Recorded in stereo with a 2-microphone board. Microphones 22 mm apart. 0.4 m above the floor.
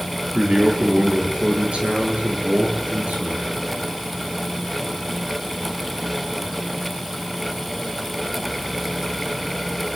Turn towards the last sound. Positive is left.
turn(degrees=-60)  # may be behind; listen again after turning